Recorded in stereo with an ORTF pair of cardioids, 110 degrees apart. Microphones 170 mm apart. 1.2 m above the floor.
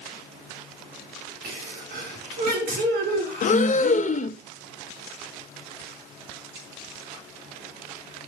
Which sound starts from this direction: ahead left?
Breathing, at 3.4 s.